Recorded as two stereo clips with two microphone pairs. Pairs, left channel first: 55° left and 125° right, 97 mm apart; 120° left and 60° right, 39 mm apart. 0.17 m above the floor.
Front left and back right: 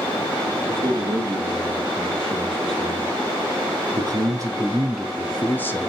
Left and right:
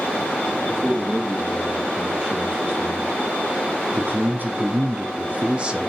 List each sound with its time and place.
0.7 s a man speaking: 120° right, 6 m; by 5.9 s 5° left, 1.8 m